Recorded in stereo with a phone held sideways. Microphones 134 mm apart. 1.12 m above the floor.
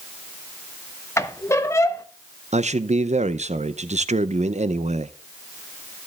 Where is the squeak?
20° left (ahead or behind), 0.8 m.